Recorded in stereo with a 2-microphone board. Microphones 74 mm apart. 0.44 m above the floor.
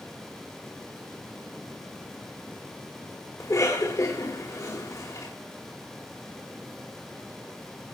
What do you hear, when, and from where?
3.4 s a cough: 45° left (ahead or behind), 2 m